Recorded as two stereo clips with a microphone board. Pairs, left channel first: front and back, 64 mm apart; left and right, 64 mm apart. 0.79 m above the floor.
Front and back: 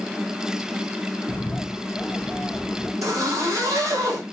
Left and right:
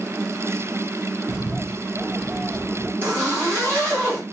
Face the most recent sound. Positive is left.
turn(degrees=-150)